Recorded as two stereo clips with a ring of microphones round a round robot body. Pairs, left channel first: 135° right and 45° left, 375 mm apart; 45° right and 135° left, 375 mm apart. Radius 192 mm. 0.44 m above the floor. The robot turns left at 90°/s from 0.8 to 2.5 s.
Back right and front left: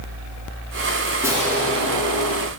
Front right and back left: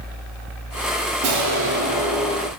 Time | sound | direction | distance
1.2 | an explosion | 130° left | 1.1 m